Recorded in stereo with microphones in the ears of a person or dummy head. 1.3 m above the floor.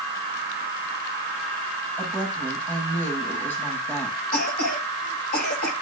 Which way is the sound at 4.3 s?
50° left (ahead or behind).